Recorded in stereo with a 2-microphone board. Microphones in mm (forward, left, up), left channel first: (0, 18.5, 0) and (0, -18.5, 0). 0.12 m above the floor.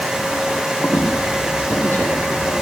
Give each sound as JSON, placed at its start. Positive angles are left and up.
{"t": 0.8, "sound": "a squeak", "side_deg": 65, "distance_m": 7.0}